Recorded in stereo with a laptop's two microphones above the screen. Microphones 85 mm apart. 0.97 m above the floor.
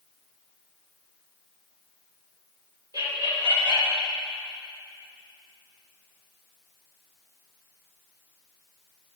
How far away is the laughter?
About 2.5 m.